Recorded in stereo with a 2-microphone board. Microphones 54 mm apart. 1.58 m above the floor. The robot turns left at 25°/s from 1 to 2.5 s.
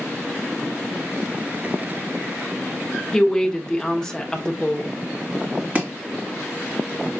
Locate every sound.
3.1 s a woman speaking: 10° left (ahead or behind), 1.0 m
5.8 s chopping: 30° right (ahead or behind), 2 m